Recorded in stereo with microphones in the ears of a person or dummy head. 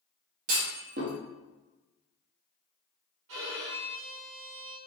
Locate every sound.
0.5 s a clunk: 45° right (ahead or behind), 0.9 m
3.3 s a violin: 70° right (ahead or behind), 0.8 m